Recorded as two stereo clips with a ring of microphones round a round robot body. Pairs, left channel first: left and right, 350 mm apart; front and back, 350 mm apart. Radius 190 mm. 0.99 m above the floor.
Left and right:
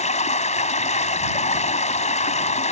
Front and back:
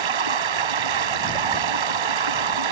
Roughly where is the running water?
Behind.